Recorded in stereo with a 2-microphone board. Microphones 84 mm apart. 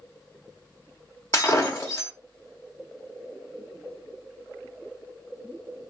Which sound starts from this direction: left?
Breaking glass, at 1.3 s.